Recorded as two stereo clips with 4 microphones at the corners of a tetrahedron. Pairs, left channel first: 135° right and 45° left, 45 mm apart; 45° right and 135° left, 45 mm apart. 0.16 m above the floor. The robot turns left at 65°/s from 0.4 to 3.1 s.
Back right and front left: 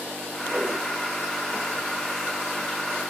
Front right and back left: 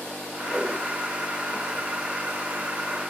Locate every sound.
0.5 s a whoosh: 55° left, 3 m; by 0.8 s 35° left, 3 m